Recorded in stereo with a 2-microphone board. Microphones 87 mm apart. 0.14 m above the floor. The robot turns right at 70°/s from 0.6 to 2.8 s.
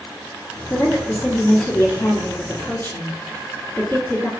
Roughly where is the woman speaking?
Ahead.